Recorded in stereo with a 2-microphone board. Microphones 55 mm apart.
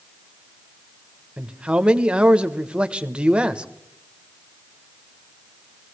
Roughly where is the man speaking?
Centre.